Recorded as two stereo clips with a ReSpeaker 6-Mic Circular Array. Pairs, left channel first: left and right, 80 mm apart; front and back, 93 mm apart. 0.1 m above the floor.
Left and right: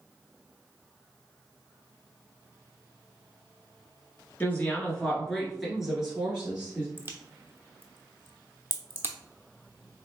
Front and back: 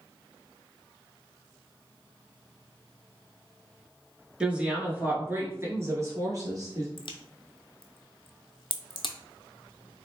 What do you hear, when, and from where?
4.4 s a woman speaking: 115° left, 1.2 m; by 6.9 s 155° right, 1.6 m
7.0 s a crack: 25° right, 0.6 m